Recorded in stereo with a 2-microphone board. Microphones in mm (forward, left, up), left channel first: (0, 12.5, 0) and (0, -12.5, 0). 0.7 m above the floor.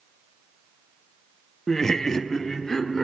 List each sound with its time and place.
1.7 s laughter: 15° left (ahead or behind), 0.5 m